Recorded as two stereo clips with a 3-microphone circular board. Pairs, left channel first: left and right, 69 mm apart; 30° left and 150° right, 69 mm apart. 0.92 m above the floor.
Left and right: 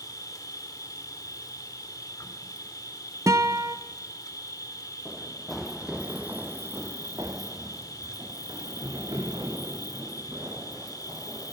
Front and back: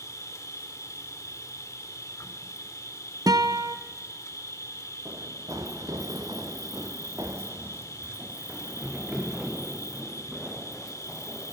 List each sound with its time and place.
0.0 s an insect: 70° left, 1.8 m
3.3 s a guitar: 130° right, 0.9 m
5.0 s running footsteps: 175° left, 2.5 m; by 11.5 s 65° right, 6 m